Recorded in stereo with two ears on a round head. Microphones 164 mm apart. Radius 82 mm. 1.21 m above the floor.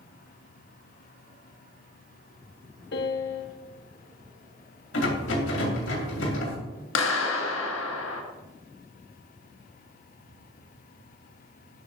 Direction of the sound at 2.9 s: 65° left (ahead or behind).